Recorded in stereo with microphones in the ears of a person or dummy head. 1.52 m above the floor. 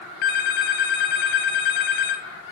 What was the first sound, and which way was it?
A phone ringing, 40° left (ahead or behind).